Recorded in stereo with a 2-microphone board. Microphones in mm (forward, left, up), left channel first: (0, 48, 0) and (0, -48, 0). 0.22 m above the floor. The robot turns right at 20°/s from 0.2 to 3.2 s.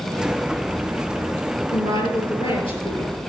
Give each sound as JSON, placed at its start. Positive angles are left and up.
{"t": 1.7, "sound": "a woman speaking", "azimuth_deg": 60, "distance_m": 4.0}